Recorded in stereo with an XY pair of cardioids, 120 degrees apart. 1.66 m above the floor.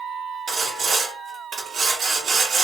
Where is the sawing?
55° right, 1.6 m.